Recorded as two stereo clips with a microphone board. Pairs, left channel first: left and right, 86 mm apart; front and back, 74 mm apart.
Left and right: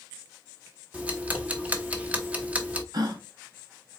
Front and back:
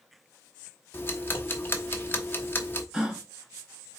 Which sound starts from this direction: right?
A gasp, at 2.9 s.